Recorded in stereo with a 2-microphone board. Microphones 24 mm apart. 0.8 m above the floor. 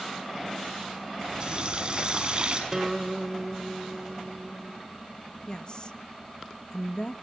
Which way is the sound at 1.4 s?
35° right (ahead or behind).